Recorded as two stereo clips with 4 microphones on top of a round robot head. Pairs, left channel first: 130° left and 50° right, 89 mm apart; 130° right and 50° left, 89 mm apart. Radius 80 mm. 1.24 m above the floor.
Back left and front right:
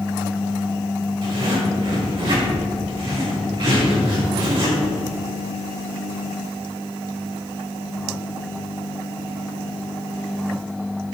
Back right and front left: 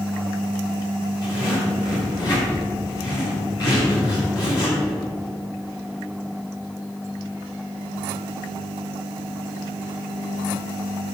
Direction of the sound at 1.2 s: 85° right.